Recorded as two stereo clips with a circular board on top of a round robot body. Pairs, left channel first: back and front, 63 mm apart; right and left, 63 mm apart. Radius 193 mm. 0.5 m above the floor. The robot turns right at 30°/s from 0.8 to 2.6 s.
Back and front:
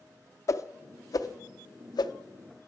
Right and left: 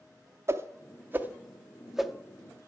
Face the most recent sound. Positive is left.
turn(degrees=-170)